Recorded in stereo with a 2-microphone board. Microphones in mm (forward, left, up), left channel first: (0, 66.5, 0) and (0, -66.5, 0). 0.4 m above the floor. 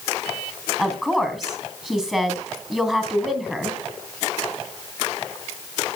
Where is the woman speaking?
5° right (ahead or behind), 3 m.